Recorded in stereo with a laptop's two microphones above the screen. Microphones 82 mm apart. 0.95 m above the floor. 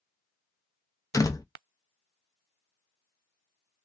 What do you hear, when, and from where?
1.1 s a door slam: 40° left (ahead or behind), 0.7 m